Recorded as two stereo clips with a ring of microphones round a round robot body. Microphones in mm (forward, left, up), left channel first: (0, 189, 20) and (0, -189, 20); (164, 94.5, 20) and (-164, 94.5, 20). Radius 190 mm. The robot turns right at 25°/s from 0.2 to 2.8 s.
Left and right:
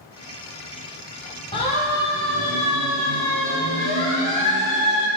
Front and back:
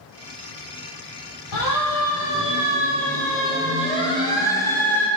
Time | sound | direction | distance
1.5 | a siren | 15° left | 4.5 m